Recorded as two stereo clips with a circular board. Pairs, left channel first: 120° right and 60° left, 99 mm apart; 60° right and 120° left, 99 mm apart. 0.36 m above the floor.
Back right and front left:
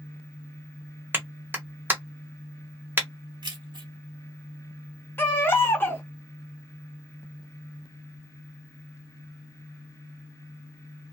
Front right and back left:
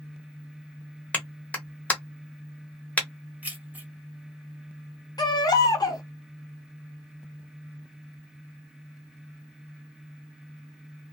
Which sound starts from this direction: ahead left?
Keys jangling, at 3.4 s.